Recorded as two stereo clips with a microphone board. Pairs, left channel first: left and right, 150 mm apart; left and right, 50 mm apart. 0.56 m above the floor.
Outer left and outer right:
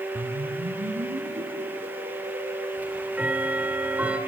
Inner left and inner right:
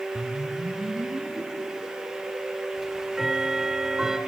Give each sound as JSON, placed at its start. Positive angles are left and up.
{"t": 0.1, "sound": "a whoosh", "side_deg": -70, "distance_m": 3.5}
{"t": 2.8, "sound": "ticking", "side_deg": -10, "distance_m": 1.6}